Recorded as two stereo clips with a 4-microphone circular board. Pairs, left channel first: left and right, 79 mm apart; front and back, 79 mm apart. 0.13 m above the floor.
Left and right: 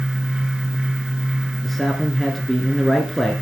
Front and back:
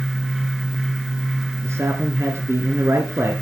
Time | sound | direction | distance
1.6 | a man speaking | 175° left | 2.0 m